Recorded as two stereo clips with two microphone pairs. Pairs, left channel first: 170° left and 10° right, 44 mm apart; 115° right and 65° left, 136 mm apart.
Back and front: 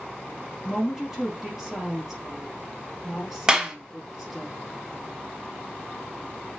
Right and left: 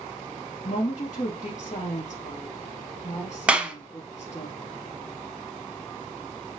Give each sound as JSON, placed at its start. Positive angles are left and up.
{"t": 0.6, "sound": "a woman speaking", "azimuth_deg": -90, "distance_m": 3.5}
{"t": 3.5, "sound": "a clap", "azimuth_deg": -5, "distance_m": 1.1}